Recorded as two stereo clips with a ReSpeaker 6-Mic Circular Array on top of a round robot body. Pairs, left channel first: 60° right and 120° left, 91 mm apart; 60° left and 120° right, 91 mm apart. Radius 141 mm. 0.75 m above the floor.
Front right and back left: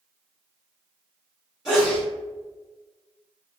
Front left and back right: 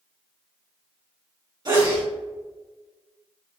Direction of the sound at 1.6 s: 160° right.